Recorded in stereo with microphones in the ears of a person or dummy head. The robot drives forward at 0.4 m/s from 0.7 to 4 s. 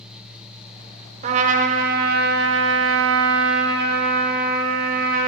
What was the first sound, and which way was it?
A trumpet, 40° right (ahead or behind).